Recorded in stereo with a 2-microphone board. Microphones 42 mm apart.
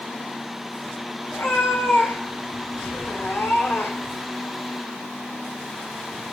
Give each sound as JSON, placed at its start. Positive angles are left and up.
{"t": 1.3, "sound": "a cat meowing", "side_deg": 80, "distance_m": 3.0}